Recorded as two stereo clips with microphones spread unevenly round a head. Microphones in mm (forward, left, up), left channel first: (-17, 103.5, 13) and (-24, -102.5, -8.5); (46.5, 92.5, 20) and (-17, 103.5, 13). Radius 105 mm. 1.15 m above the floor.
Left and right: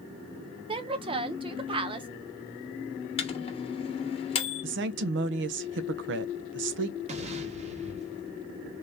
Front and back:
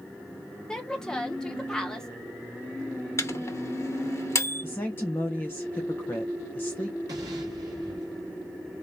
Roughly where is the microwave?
Ahead left.